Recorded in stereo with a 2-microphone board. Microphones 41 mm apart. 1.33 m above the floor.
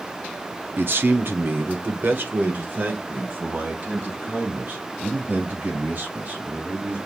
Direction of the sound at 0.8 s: 60° right (ahead or behind).